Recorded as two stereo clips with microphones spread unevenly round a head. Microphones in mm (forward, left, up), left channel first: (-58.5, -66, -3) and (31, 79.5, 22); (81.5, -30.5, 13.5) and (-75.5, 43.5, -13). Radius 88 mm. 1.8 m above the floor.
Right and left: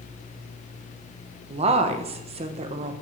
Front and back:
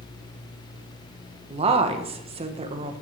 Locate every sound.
1.5 s a woman speaking: 95° left, 1.1 m